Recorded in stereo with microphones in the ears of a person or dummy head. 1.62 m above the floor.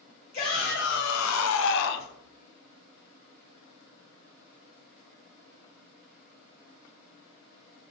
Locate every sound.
0.3 s a shout: 40° left (ahead or behind), 0.7 m; by 2.1 s 45° left (ahead or behind), 0.8 m